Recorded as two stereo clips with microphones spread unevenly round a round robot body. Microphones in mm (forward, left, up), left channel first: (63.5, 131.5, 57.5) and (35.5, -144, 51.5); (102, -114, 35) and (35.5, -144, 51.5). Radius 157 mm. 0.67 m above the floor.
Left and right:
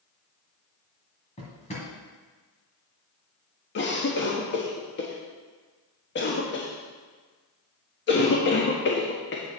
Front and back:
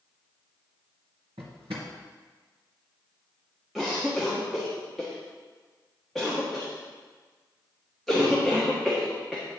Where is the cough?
100° left, 1.4 m.